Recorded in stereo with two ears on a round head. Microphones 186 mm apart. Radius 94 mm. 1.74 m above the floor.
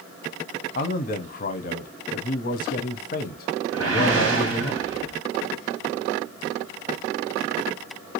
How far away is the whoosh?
About 1.2 m.